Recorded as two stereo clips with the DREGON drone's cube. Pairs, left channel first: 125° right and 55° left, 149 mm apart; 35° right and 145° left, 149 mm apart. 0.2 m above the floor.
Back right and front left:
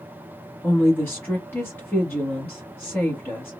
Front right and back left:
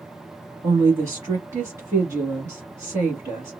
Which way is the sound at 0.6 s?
175° right.